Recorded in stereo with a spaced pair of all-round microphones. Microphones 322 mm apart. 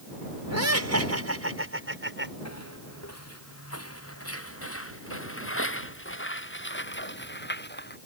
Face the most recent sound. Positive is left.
turn(degrees=30)  # may be behind; listen again after turning